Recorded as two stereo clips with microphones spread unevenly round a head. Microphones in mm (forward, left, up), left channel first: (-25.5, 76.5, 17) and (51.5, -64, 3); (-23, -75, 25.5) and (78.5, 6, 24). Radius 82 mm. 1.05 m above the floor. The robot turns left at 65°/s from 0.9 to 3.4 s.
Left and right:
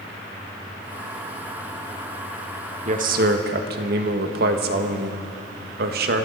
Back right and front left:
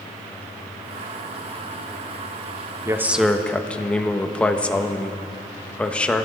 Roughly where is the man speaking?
Ahead right.